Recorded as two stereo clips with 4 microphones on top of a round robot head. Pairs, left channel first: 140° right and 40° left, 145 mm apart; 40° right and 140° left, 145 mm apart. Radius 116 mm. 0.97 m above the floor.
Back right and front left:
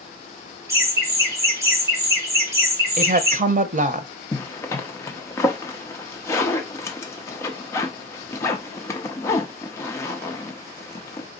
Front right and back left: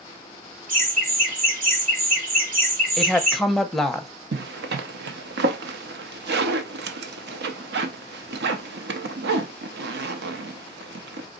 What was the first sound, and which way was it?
Laughter, 110° left.